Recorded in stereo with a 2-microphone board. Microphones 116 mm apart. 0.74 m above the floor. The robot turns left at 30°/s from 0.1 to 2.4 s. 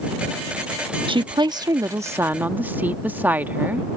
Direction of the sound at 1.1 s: 120° right.